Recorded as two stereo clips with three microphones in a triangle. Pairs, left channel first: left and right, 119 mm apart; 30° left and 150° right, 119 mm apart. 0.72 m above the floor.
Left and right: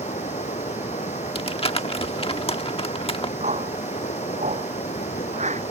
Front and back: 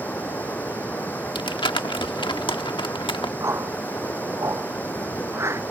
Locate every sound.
0.0 s running water: 105° left
1.4 s crumpling: 70° left
3.4 s a whoosh: 80° right